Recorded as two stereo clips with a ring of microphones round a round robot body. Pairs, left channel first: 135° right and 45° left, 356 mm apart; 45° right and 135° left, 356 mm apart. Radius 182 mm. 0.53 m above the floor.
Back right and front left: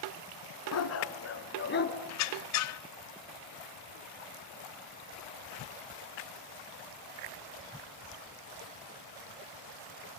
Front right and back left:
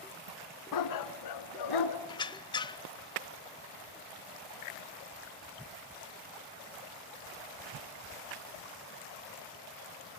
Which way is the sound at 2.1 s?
120° right.